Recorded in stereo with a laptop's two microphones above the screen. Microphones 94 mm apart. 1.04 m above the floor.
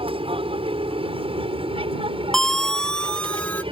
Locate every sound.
0.0 s an aircraft: 70° right (ahead or behind); by 3.7 s 65° right (ahead or behind)
2.3 s a siren: 5° left (ahead or behind); by 3.6 s 10° left (ahead or behind)